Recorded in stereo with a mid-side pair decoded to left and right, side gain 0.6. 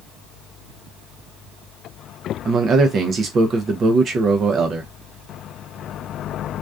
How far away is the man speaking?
About 0.6 m.